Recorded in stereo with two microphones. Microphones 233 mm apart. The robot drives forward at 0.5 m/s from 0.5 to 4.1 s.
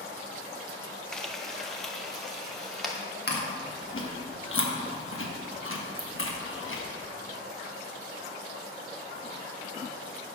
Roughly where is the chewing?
Left.